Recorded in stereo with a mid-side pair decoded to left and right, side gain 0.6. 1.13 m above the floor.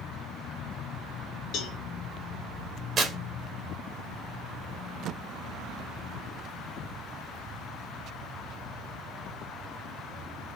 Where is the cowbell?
60° left, 1.3 m.